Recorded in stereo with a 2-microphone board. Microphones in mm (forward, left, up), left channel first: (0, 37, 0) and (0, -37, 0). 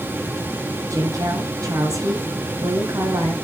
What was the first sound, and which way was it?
A woman speaking, 55° right (ahead or behind).